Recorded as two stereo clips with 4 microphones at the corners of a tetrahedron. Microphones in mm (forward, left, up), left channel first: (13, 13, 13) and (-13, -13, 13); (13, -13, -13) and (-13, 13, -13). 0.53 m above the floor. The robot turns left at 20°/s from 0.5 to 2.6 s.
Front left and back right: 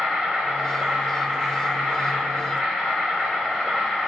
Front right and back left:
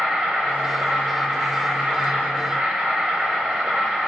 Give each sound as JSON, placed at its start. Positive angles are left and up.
{"t": 0.0, "sound": "an insect", "azimuth_deg": 160, "distance_m": 1.1}